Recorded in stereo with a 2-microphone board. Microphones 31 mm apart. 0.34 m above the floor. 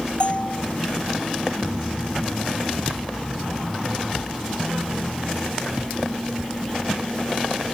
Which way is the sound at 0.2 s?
40° left (ahead or behind).